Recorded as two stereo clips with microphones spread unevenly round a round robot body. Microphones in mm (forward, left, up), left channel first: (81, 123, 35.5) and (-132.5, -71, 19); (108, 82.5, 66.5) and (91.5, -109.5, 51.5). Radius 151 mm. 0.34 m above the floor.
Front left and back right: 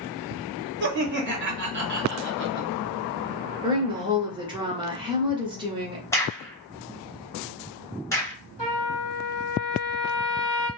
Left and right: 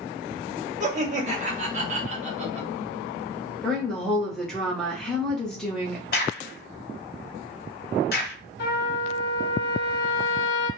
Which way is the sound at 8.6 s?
115° left.